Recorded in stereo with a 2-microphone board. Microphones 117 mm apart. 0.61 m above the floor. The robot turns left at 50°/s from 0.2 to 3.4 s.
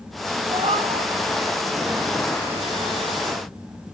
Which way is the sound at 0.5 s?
75° right (ahead or behind).